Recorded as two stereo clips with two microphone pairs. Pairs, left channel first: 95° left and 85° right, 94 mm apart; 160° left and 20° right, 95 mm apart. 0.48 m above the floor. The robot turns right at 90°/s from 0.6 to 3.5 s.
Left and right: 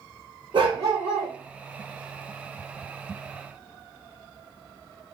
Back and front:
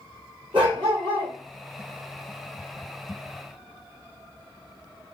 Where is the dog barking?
50° right, 2.5 m; by 1.3 s 15° left, 2.5 m.